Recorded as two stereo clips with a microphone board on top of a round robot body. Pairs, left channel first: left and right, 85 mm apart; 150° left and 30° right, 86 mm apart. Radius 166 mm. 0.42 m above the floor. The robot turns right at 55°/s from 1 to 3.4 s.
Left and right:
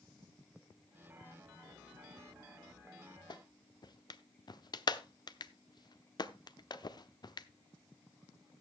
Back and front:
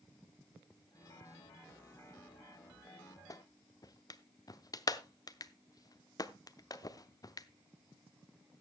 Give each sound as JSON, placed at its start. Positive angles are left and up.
{"t": 3.3, "sound": "a clap", "azimuth_deg": 110, "distance_m": 1.0}